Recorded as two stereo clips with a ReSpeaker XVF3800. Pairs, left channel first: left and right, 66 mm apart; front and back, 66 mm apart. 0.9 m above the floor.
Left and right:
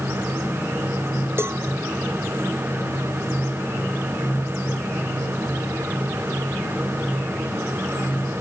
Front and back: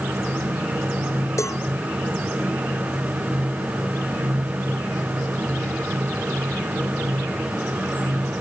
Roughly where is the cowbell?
Ahead right.